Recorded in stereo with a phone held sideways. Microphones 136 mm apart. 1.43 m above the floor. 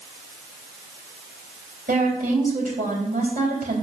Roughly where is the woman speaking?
Right.